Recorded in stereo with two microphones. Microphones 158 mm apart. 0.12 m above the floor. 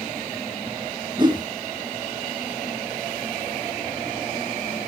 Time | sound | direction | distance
1.2 | a whoosh | 30° right (ahead or behind) | 0.8 m